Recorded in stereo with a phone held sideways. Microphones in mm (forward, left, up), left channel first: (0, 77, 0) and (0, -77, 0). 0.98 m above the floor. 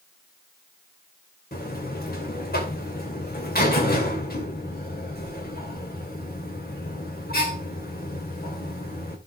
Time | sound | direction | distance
1.5 | a buzzer | 85° left | 2.5 m